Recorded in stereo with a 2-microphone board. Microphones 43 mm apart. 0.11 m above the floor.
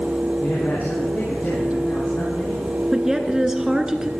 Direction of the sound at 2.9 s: 15° right (ahead or behind).